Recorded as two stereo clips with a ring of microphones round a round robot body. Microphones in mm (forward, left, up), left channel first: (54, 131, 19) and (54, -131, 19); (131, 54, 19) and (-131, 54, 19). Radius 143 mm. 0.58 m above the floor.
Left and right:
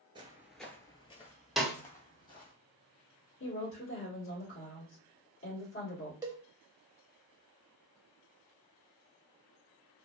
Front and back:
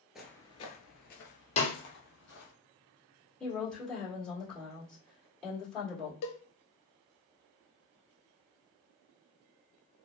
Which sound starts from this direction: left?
A woman speaking, at 3.4 s.